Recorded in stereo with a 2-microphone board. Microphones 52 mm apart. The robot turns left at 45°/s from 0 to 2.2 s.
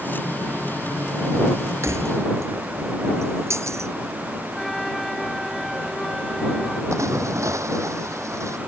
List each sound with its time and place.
1.8 s keys jangling: 65° right (ahead or behind)
4.5 s a flute: 5° left (ahead or behind)
6.9 s a splash: 75° right (ahead or behind)